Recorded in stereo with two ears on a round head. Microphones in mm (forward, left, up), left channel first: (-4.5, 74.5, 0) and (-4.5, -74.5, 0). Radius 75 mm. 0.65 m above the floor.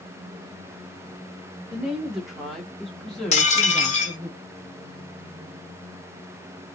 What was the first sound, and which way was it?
A woman speaking, 5° right (ahead or behind).